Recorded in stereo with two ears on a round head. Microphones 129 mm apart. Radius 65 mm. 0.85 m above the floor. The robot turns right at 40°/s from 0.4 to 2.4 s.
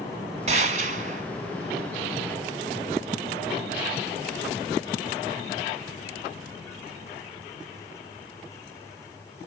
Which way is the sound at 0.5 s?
110° right.